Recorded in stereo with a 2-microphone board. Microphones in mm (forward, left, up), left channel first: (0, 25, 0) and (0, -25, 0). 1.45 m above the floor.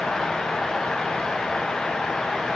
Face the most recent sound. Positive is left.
No sound to turn to.